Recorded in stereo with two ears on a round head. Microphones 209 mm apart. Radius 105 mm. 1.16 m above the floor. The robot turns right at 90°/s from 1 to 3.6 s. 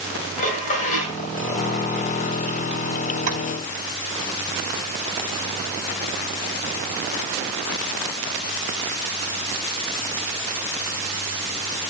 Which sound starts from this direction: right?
Tapping, at 3.3 s.